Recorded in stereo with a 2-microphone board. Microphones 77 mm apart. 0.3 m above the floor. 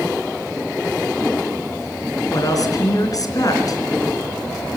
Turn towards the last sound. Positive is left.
turn(degrees=50)  # may be behind; listen again after turning